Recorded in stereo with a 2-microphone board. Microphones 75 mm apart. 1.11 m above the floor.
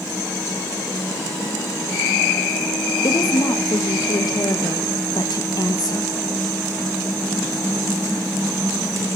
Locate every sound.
3.0 s a woman speaking: 60° left (ahead or behind), 1.4 m